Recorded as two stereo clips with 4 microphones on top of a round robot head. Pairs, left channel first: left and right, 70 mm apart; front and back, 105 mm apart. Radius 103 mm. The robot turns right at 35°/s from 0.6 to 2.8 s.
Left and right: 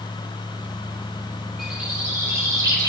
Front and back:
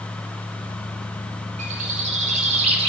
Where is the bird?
175° right, 3.5 m; by 2.9 s 135° right, 3.5 m.